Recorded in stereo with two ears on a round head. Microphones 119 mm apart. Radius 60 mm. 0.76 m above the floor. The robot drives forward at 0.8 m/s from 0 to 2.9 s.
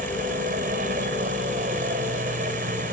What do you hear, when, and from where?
0.0 s a helicopter: 70° right (ahead or behind); by 2.9 s 65° right (ahead or behind)